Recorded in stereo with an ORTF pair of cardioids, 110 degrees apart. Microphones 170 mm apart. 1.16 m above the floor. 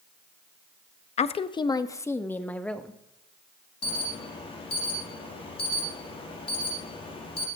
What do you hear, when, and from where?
1.2 s a woman speaking: 40° left, 1.0 m; by 3.0 s 5° left, 2 m
3.8 s an alarm: 35° left, 4.5 m